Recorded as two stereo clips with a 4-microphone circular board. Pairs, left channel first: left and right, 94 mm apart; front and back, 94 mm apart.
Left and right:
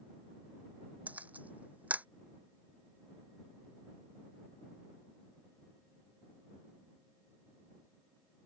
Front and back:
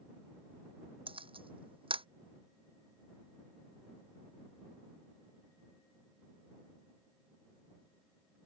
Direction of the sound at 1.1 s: 165° right.